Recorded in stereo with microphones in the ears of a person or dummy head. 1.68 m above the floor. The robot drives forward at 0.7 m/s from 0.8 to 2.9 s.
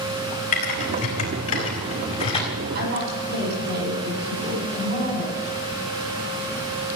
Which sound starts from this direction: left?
Typing on a keyboard, at 0.5 s.